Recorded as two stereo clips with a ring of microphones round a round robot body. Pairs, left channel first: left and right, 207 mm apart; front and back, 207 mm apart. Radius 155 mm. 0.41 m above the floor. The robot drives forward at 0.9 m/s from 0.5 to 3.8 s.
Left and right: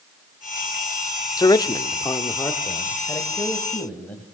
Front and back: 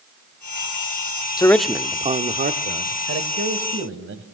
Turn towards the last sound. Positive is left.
turn(degrees=175)